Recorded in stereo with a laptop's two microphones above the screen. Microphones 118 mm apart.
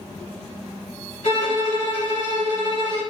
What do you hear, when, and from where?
1.2 s a violin: 70° left (ahead or behind), 1.3 m